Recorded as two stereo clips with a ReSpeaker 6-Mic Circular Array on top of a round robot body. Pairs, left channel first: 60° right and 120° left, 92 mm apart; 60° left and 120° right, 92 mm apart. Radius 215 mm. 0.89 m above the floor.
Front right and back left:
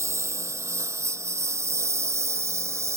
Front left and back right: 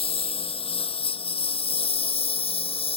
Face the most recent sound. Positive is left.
turn(degrees=60)